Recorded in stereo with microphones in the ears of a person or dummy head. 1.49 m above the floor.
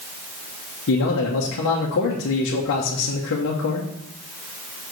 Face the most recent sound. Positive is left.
turn(degrees=65)  # may be behind; listen again after turning